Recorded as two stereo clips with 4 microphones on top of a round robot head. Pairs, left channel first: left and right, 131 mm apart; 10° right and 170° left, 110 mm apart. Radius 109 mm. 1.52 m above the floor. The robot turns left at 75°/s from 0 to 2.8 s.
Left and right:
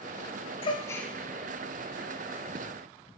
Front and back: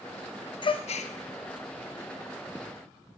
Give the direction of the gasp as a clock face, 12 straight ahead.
11 o'clock.